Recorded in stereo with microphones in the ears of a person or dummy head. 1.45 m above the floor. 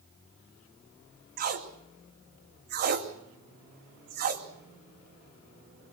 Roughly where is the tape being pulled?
Right.